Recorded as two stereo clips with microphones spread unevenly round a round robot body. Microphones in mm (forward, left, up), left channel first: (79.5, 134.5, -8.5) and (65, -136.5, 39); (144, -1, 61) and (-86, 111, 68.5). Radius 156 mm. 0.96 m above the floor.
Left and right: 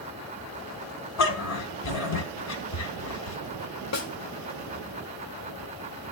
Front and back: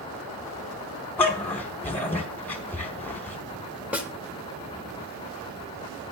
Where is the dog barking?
60° left, 1.8 m.